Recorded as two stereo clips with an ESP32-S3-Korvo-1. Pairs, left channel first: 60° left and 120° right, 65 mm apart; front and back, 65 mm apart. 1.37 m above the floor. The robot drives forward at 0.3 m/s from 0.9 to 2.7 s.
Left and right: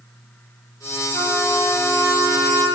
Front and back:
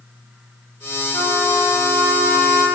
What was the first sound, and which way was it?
A trumpet, 40° left.